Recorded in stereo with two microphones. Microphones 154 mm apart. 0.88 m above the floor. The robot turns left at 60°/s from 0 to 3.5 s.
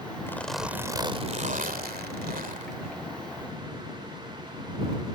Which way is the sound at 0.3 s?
20° left.